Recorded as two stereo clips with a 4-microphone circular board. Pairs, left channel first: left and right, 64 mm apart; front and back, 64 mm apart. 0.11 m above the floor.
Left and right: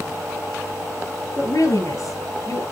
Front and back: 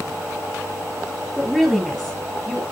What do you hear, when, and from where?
1.4 s a woman speaking: 80° left, 3 m; by 2.6 s 85° left, 2 m